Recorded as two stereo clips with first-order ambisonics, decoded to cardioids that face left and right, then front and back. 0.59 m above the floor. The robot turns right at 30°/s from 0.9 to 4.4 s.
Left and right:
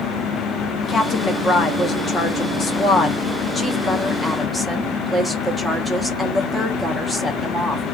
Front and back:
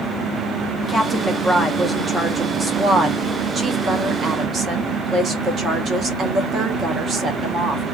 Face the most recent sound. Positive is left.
turn(degrees=170)